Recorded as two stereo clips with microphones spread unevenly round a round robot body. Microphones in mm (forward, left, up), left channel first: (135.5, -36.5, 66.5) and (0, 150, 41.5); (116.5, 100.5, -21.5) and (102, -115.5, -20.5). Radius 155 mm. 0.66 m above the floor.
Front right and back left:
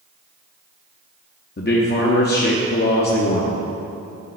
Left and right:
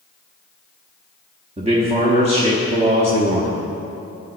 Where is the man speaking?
55° right, 1.0 m.